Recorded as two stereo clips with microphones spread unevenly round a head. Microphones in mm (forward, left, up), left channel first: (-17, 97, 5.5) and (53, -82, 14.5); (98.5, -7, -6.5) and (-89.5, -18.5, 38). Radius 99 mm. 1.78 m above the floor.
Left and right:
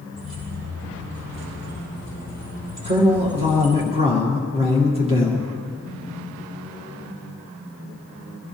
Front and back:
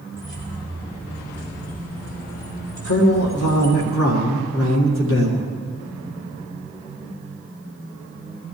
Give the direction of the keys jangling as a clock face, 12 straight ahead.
2 o'clock.